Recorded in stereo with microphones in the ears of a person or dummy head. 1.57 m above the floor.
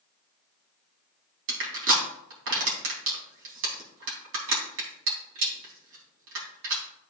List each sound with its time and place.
1.5 s crushing: 70° right (ahead or behind), 3 m